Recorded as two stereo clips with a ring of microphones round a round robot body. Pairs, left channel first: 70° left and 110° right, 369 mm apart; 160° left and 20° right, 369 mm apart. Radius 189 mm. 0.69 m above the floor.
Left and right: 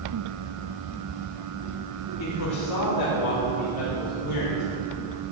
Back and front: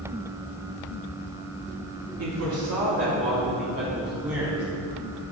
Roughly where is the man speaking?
Ahead left.